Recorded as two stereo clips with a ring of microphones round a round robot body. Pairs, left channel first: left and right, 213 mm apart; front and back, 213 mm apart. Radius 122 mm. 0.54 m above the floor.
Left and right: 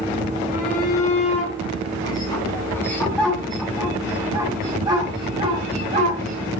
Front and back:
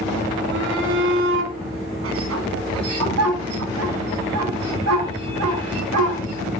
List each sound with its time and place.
0.5 s a shout: 150° left, 6 m; by 6.5 s 150° right, 6 m